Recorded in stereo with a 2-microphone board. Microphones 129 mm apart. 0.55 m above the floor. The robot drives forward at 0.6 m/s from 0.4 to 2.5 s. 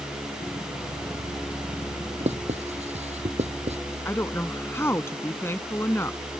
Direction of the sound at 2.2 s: 55° right (ahead or behind).